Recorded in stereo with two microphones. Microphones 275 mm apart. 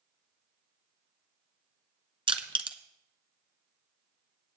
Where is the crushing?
20° right (ahead or behind), 1.0 m.